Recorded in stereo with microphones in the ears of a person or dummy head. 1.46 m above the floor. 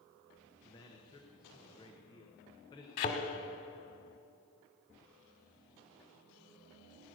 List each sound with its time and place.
0.6 s a man speaking: 15° left (ahead or behind), 1.1 m
3.0 s a thud: 45° left (ahead or behind), 1.9 m